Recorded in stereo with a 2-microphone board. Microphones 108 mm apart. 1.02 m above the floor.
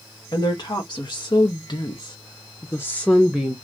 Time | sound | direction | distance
0.3 | a woman speaking | 45° left (ahead or behind) | 1.4 m